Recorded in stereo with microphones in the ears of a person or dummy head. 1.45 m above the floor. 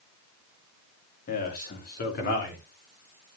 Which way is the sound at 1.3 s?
40° left (ahead or behind).